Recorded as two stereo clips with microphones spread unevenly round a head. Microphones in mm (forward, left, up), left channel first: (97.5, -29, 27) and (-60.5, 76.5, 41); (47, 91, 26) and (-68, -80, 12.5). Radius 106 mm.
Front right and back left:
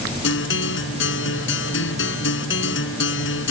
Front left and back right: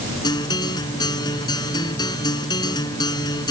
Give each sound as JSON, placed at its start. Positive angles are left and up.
{"t": 0.2, "sound": "a guitar", "azimuth_deg": -15}